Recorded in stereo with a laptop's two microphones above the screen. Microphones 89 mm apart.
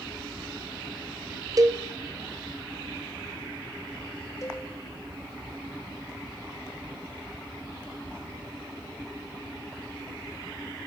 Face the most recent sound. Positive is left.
turn(degrees=35)  # may be behind; listen again after turning